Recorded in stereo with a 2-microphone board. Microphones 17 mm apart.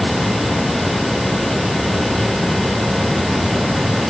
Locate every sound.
Only background noise.